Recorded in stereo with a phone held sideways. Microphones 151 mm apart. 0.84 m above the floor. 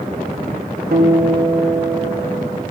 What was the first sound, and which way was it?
A guitar, 80° right.